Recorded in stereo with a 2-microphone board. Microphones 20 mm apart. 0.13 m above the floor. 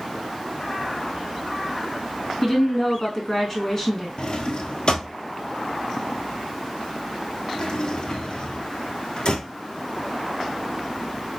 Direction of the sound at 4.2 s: 45° left (ahead or behind).